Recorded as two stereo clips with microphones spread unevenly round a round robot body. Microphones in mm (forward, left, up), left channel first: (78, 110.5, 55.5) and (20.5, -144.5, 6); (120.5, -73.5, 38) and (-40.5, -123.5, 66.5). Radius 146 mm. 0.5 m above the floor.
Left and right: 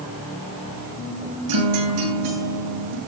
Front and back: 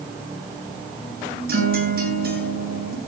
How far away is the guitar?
About 10 m.